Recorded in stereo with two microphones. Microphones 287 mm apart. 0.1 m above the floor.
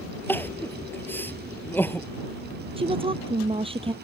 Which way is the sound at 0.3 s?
5° left (ahead or behind).